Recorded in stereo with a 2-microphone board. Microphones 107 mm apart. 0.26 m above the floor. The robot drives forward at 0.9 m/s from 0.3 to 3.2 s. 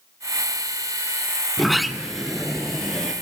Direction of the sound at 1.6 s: Centre (ahead or behind).